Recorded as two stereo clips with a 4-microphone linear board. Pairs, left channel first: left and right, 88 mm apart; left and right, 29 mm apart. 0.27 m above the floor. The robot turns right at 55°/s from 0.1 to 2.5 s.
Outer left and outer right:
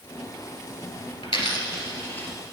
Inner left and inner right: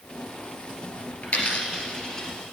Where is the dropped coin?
70° left (ahead or behind), 2 m; by 2.3 s 15° left (ahead or behind), 2 m.